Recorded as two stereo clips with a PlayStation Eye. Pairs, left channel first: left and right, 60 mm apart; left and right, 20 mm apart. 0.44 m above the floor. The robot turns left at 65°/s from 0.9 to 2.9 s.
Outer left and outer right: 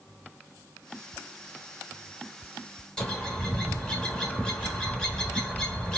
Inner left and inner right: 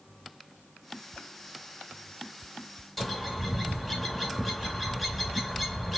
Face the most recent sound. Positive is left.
turn(degrees=10)  # may be behind; listen again after turning